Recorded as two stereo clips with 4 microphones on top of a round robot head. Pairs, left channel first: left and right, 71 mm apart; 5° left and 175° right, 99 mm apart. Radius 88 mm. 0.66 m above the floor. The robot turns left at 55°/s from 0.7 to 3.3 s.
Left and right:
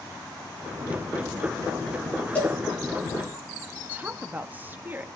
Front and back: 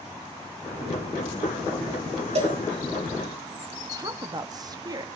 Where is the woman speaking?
145° right, 0.9 m.